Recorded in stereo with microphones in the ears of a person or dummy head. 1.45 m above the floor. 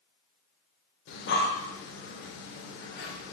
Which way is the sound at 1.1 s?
65° left (ahead or behind).